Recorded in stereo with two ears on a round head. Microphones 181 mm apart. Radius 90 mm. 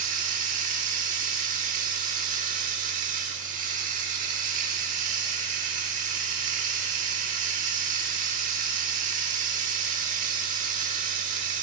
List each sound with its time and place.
0.0 s running water: 40° right (ahead or behind), 1.3 m